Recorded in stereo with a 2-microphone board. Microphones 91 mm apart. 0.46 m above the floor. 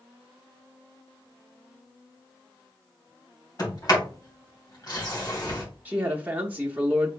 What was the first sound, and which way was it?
A sliding door, 45° left (ahead or behind).